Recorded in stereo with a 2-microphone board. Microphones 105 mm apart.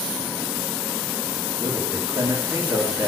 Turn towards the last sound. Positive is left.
turn(degrees=-30)  # may be behind; listen again after turning